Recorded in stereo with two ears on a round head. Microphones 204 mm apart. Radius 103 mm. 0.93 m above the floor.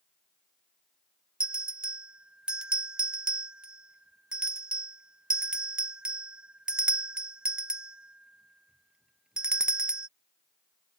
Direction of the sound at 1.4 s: 5° right (ahead or behind).